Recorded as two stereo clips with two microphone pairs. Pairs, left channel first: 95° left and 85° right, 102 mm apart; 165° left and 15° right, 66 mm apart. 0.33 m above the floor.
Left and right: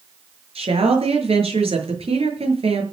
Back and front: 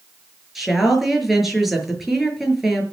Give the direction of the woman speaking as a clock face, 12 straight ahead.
3 o'clock.